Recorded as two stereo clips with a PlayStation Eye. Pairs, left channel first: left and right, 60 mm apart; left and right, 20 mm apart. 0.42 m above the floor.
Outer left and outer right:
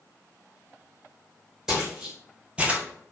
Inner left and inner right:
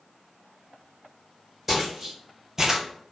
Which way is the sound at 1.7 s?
10° right (ahead or behind).